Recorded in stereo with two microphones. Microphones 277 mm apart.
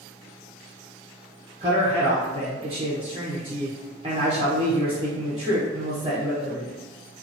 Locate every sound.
1.6 s a man speaking: 20° right (ahead or behind), 0.8 m